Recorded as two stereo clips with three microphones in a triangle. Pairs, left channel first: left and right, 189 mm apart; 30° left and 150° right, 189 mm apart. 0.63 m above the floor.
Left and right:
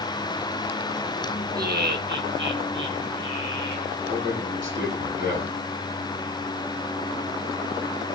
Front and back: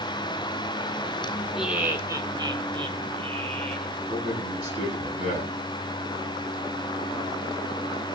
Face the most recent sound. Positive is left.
turn(degrees=-95)